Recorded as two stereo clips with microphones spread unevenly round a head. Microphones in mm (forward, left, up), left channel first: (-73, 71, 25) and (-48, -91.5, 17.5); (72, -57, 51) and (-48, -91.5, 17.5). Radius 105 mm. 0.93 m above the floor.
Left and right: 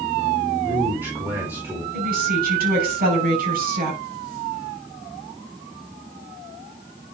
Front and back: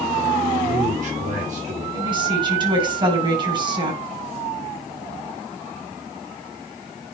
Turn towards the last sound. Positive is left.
turn(degrees=-115)